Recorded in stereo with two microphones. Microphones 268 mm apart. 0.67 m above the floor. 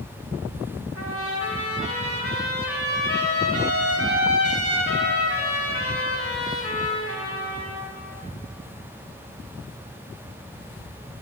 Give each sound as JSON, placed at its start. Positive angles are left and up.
{"t": 0.9, "sound": "a trumpet", "side_deg": 55, "distance_m": 1.2}